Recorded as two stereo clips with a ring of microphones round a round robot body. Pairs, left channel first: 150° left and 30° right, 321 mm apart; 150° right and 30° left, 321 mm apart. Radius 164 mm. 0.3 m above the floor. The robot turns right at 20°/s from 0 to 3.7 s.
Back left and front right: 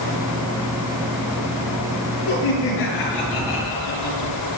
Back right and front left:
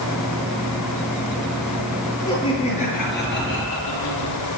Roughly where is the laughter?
Behind left.